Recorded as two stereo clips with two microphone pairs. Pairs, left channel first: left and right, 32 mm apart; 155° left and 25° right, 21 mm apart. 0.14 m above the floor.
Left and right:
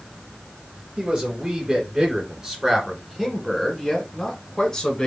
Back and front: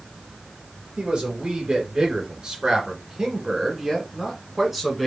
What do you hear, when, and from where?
1.0 s a man speaking: 50° right, 2.5 m; by 5.1 s 65° left, 1.6 m